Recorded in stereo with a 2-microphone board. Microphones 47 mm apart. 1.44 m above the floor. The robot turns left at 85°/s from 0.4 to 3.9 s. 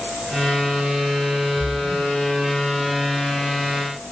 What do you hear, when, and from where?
1.6 s a splash: 35° left, 0.6 m; by 2.1 s 10° right, 0.6 m